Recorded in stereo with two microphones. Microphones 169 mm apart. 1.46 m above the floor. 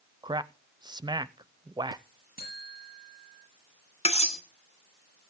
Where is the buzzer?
65° left (ahead or behind), 7 m.